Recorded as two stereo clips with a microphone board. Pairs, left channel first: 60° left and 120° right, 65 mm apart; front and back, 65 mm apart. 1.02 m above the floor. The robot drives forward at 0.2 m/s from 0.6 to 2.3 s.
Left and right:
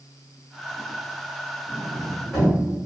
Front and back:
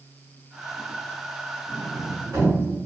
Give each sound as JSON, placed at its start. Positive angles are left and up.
{"t": 1.7, "sound": "a sliding door", "azimuth_deg": 135, "distance_m": 1.4}